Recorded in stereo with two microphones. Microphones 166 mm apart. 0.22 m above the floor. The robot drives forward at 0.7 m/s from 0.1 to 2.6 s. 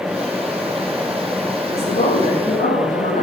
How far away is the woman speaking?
About 8.5 m.